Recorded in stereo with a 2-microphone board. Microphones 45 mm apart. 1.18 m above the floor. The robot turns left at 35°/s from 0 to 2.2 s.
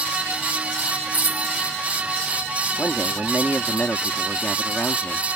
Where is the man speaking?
40° left (ahead or behind).